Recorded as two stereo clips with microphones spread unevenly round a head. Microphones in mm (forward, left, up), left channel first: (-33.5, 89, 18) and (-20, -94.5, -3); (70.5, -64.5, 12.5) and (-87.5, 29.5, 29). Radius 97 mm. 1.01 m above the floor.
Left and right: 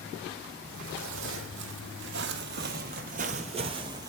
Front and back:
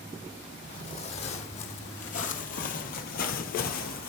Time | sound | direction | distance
0.7 | footsteps | 90° right | 2 m